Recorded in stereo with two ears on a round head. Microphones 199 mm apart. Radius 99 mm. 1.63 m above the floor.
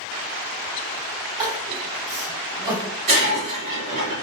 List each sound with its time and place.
1.4 s crying: 10° right (ahead or behind), 1.9 m
3.1 s breaking glass: 30° right (ahead or behind), 1.9 m